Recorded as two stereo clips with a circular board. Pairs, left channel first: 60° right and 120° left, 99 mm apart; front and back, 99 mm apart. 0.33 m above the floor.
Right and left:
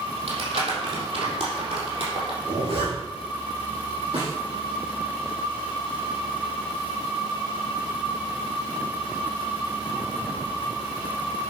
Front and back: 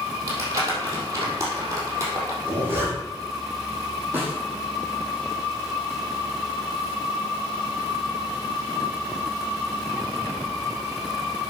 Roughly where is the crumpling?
Behind left.